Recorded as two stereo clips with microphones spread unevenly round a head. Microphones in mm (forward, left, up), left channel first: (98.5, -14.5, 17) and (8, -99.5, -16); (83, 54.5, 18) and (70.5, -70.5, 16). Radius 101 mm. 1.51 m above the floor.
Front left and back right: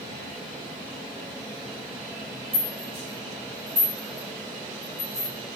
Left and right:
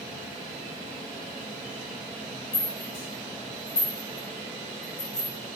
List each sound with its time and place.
2.5 s a rattle: 140° left, 0.7 m